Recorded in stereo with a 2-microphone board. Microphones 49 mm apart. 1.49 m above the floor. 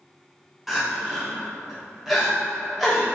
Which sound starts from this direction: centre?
Crying, at 0.7 s.